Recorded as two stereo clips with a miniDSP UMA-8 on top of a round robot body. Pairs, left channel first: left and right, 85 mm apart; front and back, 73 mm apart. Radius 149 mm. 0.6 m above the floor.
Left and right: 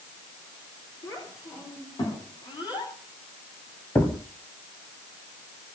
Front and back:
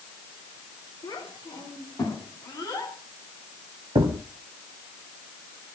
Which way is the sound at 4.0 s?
155° left.